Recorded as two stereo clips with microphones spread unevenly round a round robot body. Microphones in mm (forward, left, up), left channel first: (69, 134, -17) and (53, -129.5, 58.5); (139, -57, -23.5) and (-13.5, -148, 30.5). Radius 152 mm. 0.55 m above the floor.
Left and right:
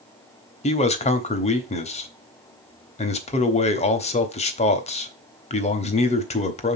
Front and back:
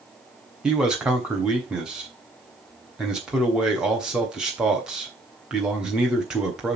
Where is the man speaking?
105° left, 1.0 m.